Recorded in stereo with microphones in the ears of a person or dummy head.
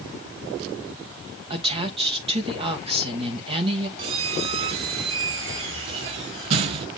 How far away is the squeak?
About 0.6 m.